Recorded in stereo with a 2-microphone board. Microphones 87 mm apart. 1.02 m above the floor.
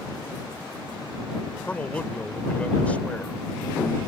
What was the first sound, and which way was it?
A man speaking, 15° left (ahead or behind).